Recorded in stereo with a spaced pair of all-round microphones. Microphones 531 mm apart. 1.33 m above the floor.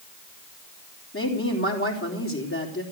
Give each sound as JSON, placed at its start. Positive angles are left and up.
{"t": 1.1, "sound": "a woman speaking", "side_deg": 25, "distance_m": 3.5}